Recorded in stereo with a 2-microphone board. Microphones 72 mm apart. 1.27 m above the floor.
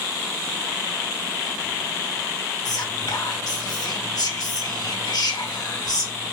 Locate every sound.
2.6 s whispering: 65° left (ahead or behind), 1.8 m